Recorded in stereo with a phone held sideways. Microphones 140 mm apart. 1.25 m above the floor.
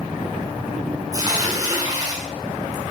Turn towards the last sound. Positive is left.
turn(degrees=-25)  # may be behind; listen again after turning